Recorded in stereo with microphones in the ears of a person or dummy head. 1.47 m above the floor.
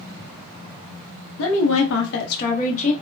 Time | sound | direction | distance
1.4 | a woman speaking | 75° left (ahead or behind) | 0.6 m